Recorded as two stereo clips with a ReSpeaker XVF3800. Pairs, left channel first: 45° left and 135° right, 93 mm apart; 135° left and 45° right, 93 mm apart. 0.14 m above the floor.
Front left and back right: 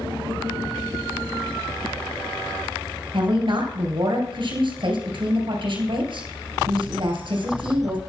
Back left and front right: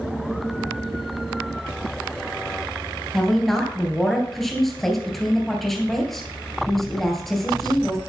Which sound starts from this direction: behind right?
A woman speaking, at 3.1 s.